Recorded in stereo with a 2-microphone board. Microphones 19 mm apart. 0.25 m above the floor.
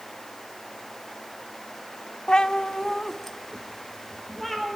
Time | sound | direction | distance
2.3 | a cat meowing | 55° left (ahead or behind) | 0.7 m